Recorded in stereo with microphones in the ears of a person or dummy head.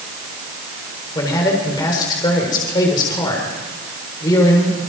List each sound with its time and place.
1.1 s a man speaking: 20° left (ahead or behind), 5 m